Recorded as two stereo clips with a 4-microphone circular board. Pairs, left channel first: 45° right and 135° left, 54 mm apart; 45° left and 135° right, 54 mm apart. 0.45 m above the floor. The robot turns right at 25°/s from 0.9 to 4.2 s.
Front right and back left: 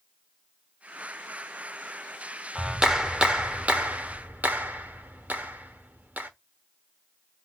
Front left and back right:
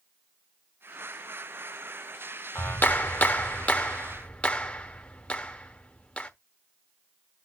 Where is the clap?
55° left, 1.2 m; by 6.3 s 100° left, 1.2 m.